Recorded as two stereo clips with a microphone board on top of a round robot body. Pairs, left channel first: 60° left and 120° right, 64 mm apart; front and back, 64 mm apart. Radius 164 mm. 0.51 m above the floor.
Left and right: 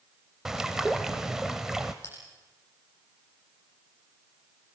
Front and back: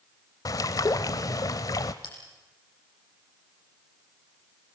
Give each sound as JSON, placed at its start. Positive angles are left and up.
{"t": 0.5, "sound": "a bird", "azimuth_deg": -35, "distance_m": 0.6}
{"t": 2.0, "sound": "a bell", "azimuth_deg": 5, "distance_m": 8.0}